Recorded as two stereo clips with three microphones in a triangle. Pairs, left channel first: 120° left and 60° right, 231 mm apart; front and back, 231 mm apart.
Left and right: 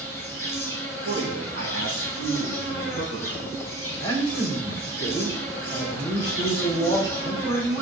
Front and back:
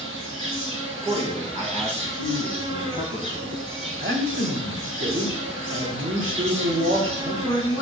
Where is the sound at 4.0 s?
170° right, 3.5 m.